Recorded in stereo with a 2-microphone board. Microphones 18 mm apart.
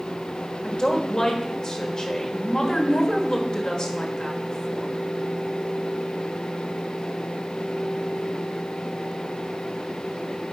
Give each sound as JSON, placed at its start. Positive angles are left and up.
{"t": 0.6, "sound": "a woman speaking", "side_deg": 50, "distance_m": 1.5}